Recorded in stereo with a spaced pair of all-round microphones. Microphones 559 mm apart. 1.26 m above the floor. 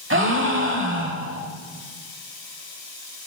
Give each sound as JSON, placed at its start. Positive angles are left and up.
{"t": 0.1, "sound": "a gasp", "side_deg": -20, "distance_m": 1.1}